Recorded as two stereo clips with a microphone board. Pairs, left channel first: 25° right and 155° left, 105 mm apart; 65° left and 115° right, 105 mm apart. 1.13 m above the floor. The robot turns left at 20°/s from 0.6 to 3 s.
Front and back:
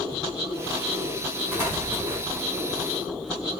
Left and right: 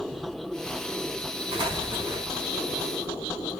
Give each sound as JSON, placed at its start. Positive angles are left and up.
{"t": 1.5, "sound": "an explosion", "azimuth_deg": -140, "distance_m": 2.5}